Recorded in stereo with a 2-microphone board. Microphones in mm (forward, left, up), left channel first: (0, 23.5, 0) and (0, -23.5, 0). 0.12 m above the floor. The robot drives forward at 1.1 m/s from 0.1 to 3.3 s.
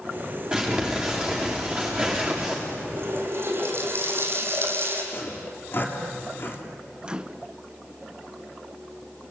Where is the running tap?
55° right (ahead or behind), 4 m; by 5.0 s 50° right (ahead or behind), 4.5 m.